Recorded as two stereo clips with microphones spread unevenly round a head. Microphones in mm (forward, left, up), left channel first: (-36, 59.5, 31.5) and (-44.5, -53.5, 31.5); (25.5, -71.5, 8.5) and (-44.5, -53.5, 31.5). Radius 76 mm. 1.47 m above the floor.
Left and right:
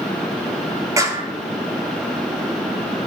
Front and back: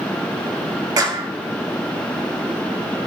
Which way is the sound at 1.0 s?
155° right.